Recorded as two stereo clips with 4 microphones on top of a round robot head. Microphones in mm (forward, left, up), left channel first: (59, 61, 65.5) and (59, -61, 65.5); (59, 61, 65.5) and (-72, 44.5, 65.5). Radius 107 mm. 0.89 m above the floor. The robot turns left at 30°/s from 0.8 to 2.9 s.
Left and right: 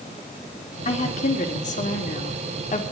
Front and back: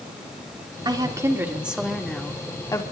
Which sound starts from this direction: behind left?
A woman speaking, at 0.8 s.